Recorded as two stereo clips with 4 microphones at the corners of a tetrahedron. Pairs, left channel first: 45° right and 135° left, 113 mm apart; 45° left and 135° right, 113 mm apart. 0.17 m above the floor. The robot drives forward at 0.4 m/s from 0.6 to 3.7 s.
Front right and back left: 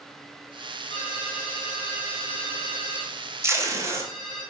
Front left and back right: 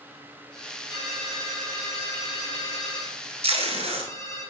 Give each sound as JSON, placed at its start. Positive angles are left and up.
{"t": 0.9, "sound": "a ringtone", "azimuth_deg": -5, "distance_m": 3.0}
{"t": 3.4, "sound": "tape being pulled", "azimuth_deg": -160, "distance_m": 1.4}